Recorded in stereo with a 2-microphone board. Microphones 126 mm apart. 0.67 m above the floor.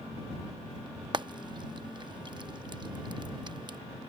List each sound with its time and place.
1.1 s frying: 40° right (ahead or behind)